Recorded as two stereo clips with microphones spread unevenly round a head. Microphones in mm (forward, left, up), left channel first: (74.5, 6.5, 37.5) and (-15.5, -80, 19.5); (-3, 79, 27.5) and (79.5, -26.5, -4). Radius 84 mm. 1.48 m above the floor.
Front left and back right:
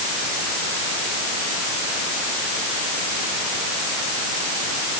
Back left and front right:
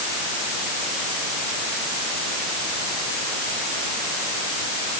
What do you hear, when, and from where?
Only background noise.